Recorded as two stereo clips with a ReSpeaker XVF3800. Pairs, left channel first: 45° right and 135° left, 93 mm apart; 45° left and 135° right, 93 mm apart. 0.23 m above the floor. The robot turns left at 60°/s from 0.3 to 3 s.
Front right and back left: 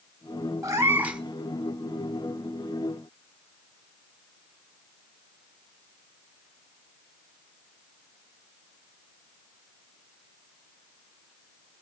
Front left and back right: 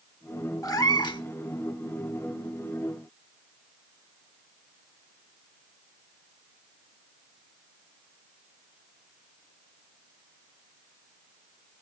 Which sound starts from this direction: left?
A cat meowing, at 0.6 s.